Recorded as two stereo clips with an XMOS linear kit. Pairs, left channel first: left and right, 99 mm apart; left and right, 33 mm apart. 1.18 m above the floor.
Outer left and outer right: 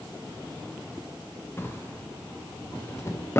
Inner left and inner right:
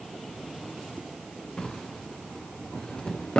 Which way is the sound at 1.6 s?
30° left (ahead or behind).